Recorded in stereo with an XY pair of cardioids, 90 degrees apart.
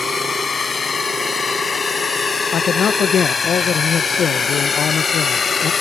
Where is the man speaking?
65° left.